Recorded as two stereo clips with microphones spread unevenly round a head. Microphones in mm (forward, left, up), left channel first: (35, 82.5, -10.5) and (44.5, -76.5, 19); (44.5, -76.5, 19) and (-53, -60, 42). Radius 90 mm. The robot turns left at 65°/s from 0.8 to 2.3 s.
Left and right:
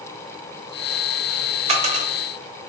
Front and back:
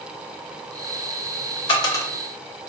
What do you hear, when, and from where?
1.7 s a dropped coin: 55° right, 0.7 m; by 2.1 s 80° right, 0.7 m